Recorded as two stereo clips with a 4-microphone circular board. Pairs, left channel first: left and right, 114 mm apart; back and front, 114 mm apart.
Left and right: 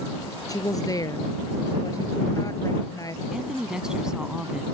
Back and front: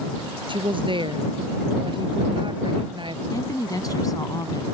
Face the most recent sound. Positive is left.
turn(degrees=-165)